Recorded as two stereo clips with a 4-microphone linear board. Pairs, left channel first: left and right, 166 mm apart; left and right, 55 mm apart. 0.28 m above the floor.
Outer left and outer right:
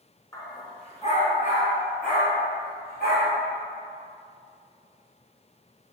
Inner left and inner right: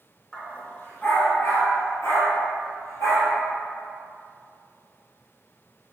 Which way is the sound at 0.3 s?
20° left (ahead or behind).